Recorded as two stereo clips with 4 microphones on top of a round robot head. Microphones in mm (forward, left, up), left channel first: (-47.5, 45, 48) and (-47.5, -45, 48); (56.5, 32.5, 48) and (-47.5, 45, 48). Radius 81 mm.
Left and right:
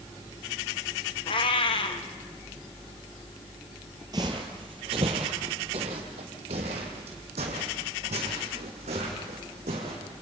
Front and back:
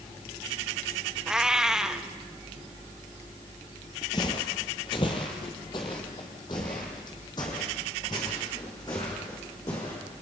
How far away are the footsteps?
About 1.8 m.